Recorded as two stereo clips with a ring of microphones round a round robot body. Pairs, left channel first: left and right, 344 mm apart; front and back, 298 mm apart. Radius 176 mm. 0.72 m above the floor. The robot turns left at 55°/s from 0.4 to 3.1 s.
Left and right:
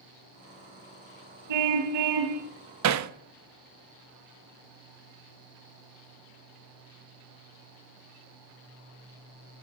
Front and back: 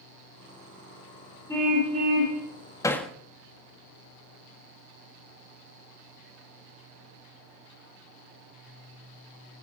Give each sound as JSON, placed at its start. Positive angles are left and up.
{"t": 1.5, "sound": "a car horn", "azimuth_deg": -80, "distance_m": 3.0}
{"t": 2.8, "sound": "hammering", "azimuth_deg": -75, "distance_m": 1.0}